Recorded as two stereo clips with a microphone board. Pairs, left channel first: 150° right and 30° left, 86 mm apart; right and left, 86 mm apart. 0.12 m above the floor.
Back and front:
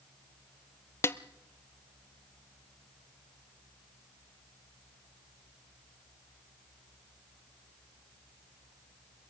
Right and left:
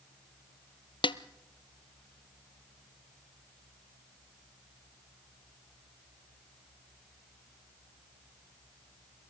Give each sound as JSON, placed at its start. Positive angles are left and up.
{"t": 1.0, "sound": "a snare drum", "azimuth_deg": -90, "distance_m": 0.5}